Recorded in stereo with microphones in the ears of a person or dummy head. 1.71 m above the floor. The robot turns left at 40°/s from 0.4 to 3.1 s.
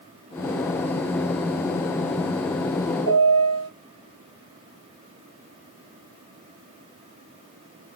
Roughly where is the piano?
Right.